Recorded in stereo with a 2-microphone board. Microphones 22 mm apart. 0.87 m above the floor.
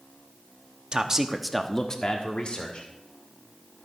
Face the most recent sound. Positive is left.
turn(degrees=60)  # may be behind; listen again after turning